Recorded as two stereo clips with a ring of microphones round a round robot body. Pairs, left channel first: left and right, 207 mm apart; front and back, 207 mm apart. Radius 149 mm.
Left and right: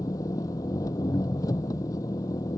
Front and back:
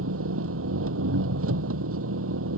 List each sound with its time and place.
0.0 s an engine running: 170° left